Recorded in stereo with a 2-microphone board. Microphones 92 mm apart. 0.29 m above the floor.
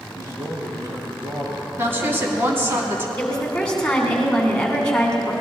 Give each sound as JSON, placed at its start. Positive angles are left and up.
{"t": 0.1, "sound": "a man speaking", "side_deg": -35, "distance_m": 5.5}
{"t": 1.8, "sound": "a woman speaking", "side_deg": -25, "distance_m": 2.5}
{"t": 3.2, "sound": "a woman speaking", "side_deg": 10, "distance_m": 3.0}